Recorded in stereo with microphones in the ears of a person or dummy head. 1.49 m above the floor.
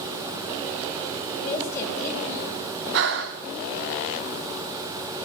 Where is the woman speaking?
15° left (ahead or behind), 8.5 m.